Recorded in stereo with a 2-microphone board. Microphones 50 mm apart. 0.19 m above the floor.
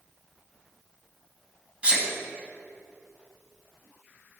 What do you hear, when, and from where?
1.8 s a sneeze: 25° right (ahead or behind), 1.5 m